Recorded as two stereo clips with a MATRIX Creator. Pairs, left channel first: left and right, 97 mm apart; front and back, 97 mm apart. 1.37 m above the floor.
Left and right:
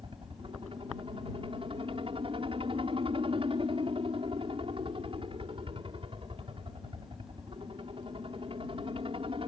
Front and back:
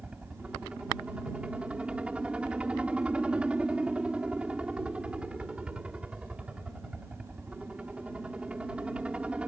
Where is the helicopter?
105° right.